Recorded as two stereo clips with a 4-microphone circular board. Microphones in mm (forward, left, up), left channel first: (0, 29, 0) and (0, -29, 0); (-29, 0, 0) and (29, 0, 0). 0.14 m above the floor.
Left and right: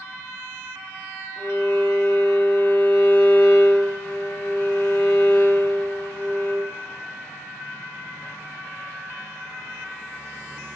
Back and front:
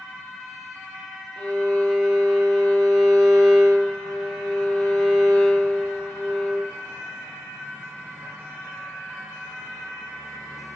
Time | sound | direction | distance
1.4 | a violin | 110° left | 3 m